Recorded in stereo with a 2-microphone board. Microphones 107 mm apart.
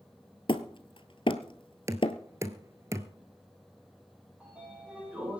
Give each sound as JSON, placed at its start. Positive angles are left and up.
{"t": 0.5, "sound": "hammering", "side_deg": 55, "distance_m": 1.1}
{"t": 1.9, "sound": "knocking", "side_deg": -30, "distance_m": 1.2}
{"t": 4.4, "sound": "a sliding door", "side_deg": -10, "distance_m": 9.0}